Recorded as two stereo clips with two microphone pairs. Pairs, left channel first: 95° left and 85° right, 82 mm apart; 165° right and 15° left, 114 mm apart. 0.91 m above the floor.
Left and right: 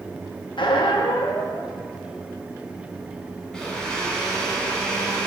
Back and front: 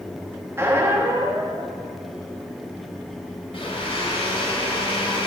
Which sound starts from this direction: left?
A squeak, at 0.6 s.